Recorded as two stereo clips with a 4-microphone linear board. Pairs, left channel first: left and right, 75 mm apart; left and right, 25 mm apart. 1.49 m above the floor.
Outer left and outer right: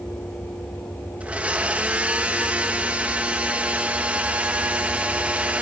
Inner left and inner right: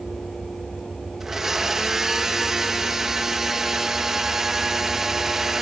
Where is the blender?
15° right (ahead or behind), 1.4 m.